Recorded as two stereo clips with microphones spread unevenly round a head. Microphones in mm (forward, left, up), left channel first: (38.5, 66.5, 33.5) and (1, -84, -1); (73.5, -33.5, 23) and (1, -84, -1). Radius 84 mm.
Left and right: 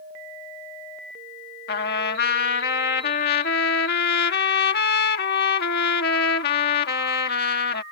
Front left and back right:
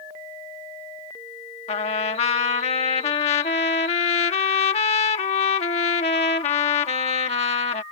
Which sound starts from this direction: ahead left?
A trumpet, at 1.7 s.